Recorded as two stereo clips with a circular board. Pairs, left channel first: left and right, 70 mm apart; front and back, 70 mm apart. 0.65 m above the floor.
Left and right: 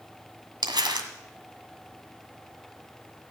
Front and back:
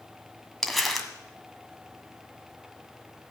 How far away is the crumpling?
About 1.8 m.